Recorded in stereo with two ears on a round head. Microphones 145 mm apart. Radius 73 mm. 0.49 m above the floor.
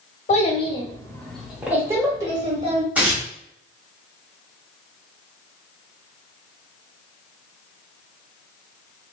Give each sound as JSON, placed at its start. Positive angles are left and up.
{"t": 0.3, "sound": "a child speaking", "side_deg": 40, "distance_m": 1.0}
{"t": 3.0, "sound": "tearing paper", "side_deg": -10, "distance_m": 1.5}